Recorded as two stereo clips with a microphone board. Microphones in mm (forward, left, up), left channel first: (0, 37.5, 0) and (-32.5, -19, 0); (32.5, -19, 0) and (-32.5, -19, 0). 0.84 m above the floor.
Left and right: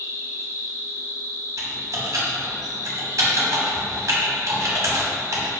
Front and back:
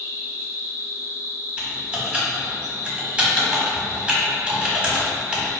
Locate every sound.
0.0 s an insect: 35° left, 1.8 m
1.6 s typing on a keyboard: 110° right, 1.0 m